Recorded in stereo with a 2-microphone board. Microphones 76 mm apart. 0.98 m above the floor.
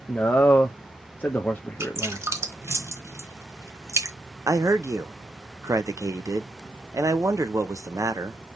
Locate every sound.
0.1 s a man speaking: 20° left (ahead or behind), 0.5 m
1.8 s dripping: 40° right (ahead or behind), 1.0 m
4.5 s a man speaking: 45° right (ahead or behind), 0.7 m